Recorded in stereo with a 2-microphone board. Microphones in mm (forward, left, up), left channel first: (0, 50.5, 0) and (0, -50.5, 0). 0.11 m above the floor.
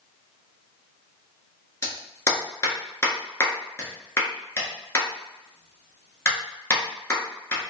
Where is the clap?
25° left (ahead or behind), 1.3 m.